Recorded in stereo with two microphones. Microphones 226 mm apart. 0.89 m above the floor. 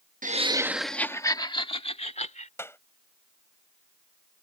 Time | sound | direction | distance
0.2 | laughter | 35° right (ahead or behind) | ?
2.6 | a clap | 10° left (ahead or behind) | ?